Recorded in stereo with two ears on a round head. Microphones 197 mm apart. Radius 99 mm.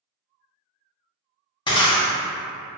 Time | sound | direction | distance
1.7 | breaking glass | 20° left (ahead or behind) | 0.6 m